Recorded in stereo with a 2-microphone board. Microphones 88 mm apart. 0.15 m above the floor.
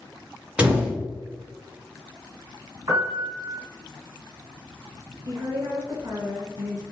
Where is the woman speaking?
40° right (ahead or behind), 1.6 m.